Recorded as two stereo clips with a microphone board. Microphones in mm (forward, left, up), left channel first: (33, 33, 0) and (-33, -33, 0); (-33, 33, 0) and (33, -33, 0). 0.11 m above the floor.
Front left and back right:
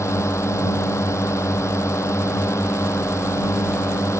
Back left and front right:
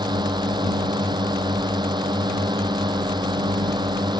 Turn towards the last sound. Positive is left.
turn(degrees=-10)